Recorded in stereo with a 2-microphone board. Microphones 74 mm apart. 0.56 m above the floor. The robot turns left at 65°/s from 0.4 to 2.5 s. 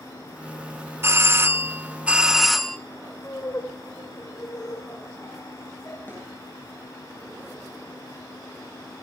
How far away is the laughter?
About 2.5 m.